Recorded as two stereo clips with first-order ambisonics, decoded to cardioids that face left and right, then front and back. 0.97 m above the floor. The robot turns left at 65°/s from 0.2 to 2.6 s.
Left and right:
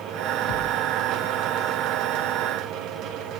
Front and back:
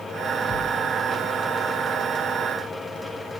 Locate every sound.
0.5 s a thud: 60° left, 0.5 m; by 0.9 s 40° left, 0.5 m